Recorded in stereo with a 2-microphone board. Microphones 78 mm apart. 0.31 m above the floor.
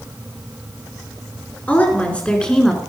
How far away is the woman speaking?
About 4 m.